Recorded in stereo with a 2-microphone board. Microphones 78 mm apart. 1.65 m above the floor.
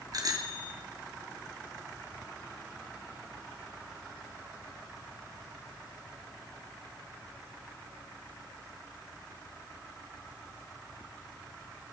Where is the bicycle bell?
50° right (ahead or behind), 2.5 m.